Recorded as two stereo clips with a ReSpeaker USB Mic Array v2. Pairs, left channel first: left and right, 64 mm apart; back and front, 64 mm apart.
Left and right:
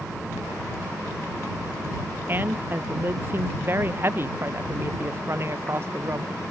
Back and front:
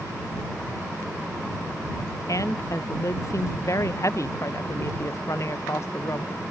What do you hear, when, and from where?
2.3 s a woman speaking: 150° right; by 6.3 s 140° right